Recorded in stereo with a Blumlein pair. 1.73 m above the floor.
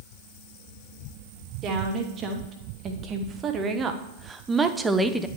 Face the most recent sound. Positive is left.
turn(degrees=0)